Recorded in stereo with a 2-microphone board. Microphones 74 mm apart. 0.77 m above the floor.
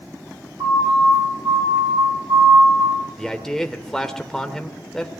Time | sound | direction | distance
0.6 | a siren | 55° right (ahead or behind) | 6.5 m
3.2 | a man speaking | 5° left (ahead or behind) | 2 m